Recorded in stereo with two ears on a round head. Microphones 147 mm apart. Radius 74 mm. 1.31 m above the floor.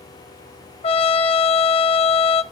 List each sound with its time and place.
0.8 s a trumpet: 35° left (ahead or behind), 0.7 m